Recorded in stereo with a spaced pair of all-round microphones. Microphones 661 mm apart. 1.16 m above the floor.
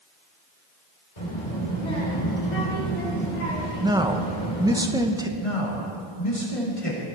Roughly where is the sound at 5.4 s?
Left.